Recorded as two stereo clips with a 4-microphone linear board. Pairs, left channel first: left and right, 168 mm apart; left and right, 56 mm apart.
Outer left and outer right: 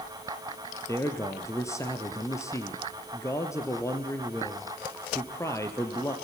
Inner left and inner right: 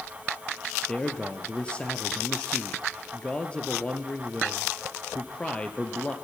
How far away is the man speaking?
About 3 m.